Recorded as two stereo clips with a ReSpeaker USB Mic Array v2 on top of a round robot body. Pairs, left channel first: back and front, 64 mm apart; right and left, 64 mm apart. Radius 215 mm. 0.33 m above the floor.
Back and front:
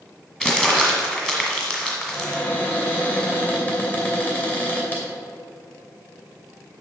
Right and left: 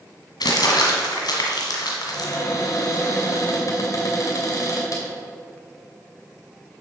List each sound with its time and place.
0.4 s crumpling: 100° right, 1.7 m
2.1 s a cupboard door: 120° right, 2.5 m